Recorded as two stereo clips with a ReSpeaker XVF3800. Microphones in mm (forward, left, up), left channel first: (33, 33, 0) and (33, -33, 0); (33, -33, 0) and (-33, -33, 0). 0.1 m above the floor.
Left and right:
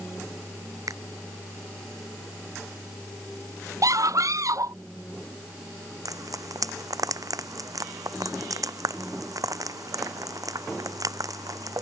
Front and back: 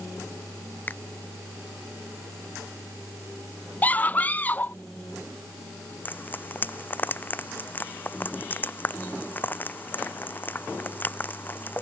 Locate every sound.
0.9 s a finger snap: 65° right
3.8 s a scream: 65° right
6.0 s frying: 60° right